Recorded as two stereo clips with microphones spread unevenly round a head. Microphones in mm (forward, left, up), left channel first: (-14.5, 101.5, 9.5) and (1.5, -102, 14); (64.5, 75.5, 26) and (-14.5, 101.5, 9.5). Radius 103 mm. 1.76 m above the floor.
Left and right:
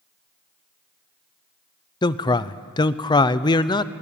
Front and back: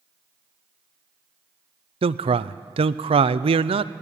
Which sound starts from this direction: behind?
A man speaking, at 2.0 s.